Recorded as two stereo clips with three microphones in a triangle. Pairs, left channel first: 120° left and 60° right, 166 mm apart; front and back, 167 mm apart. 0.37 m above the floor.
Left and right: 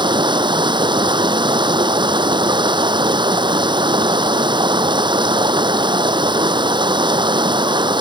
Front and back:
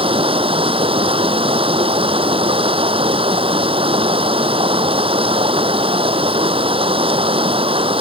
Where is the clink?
I don't hear a clink.